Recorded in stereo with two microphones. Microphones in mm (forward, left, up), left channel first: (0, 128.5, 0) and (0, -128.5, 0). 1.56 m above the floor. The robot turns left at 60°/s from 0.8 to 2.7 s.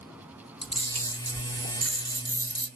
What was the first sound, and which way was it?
A camera shutter, 25° left (ahead or behind).